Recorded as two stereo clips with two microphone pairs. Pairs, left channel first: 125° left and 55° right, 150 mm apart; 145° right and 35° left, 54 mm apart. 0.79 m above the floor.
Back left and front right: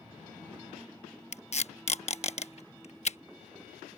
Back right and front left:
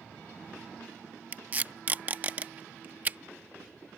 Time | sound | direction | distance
1.3 | tape being pulled | 90° left | ?